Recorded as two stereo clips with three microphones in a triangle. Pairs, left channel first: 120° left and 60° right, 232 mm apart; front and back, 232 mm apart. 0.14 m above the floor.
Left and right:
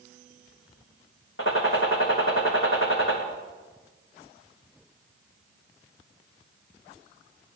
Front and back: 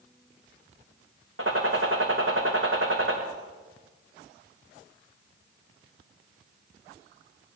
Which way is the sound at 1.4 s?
150° left.